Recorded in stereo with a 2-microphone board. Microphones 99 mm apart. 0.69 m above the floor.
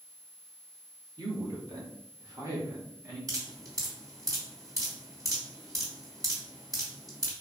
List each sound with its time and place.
1.2 s a man speaking: 45° right (ahead or behind), 1.7 m; by 3.2 s 25° right (ahead or behind), 2.5 m
3.3 s dripping: 35° right (ahead or behind), 2 m